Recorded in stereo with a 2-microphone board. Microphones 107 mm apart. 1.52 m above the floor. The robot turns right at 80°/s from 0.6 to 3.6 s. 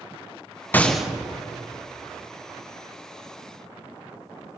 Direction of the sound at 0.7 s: 15° left (ahead or behind).